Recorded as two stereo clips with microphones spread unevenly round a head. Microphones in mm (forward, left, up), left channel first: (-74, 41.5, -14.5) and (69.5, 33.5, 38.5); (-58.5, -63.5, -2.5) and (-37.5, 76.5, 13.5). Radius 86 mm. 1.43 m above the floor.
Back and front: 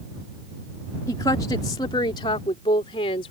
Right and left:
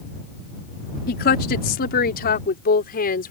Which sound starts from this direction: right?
A woman speaking, at 1.1 s.